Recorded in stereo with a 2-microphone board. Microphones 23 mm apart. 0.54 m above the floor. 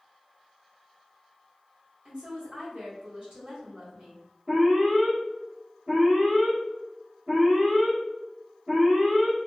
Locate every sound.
2.0 s a woman speaking: 45° right (ahead or behind), 1.5 m
4.5 s an alarm: 15° right (ahead or behind), 1.3 m